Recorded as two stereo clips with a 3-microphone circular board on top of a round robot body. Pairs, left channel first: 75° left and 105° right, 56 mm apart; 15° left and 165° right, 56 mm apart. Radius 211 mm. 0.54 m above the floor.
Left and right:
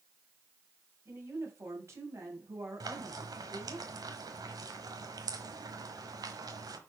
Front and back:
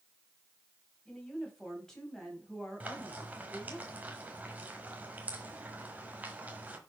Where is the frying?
100° right, 1.3 m.